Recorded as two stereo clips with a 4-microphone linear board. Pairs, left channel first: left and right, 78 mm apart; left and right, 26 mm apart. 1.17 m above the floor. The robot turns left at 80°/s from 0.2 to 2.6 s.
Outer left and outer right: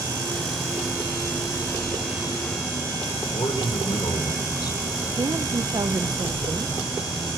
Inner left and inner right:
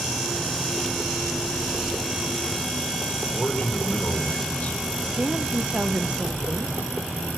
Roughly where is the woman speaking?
Right.